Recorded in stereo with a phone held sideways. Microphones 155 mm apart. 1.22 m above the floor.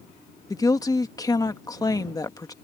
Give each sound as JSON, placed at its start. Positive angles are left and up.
{"t": 0.5, "sound": "a woman speaking", "side_deg": 25}